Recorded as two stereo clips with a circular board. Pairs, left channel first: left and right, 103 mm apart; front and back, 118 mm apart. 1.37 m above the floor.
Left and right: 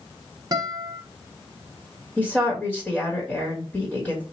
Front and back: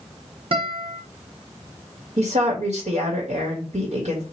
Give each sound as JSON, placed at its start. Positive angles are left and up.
{"t": 0.5, "sound": "a guitar", "azimuth_deg": -140, "distance_m": 1.0}
{"t": 2.2, "sound": "a woman speaking", "azimuth_deg": 170, "distance_m": 1.6}